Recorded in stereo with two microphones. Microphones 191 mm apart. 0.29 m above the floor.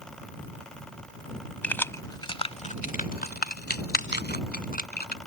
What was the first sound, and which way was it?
Keys jangling, 10° left (ahead or behind).